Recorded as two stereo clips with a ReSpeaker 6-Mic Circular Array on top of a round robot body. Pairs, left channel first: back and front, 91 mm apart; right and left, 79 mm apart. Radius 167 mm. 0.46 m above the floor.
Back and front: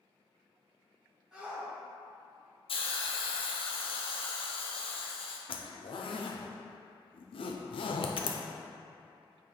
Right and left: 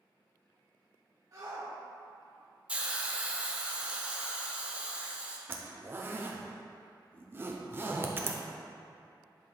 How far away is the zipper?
About 0.5 m.